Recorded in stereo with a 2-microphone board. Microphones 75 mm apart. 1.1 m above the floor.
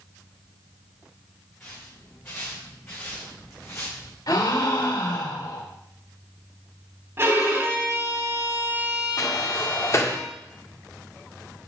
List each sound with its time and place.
1.6 s footsteps: 25° left (ahead or behind), 6 m; by 4.2 s 40° left (ahead or behind), 4 m
4.3 s a gasp: 70° left (ahead or behind), 2.5 m
7.2 s a violin: 35° right (ahead or behind), 3 m
9.2 s a sliding door: 40° left (ahead or behind), 1.5 m